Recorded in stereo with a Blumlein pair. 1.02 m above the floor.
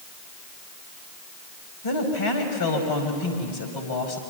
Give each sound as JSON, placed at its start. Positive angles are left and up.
{"t": 1.8, "sound": "a woman speaking", "azimuth_deg": 55, "distance_m": 5.0}